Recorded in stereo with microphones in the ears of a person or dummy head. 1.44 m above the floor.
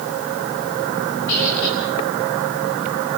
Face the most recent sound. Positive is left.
turn(degrees=60)  # may be behind; listen again after turning